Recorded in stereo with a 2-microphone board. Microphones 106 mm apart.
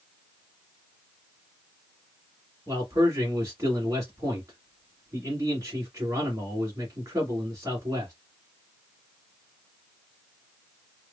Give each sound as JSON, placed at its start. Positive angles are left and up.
{"t": 2.7, "sound": "a man speaking", "side_deg": -30, "distance_m": 1.8}